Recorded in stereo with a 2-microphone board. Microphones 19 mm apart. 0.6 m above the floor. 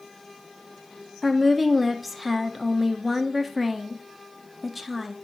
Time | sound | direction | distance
1.2 | a woman speaking | 5° right (ahead or behind) | 0.7 m